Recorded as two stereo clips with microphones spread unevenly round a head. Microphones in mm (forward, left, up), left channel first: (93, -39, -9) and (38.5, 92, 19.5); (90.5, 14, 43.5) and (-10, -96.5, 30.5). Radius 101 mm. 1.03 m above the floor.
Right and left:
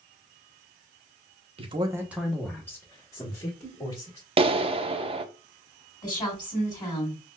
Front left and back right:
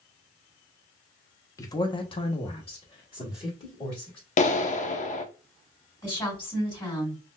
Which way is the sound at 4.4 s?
65° left.